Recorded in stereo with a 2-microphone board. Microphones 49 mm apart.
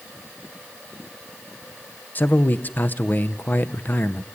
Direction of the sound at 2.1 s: 40° left (ahead or behind).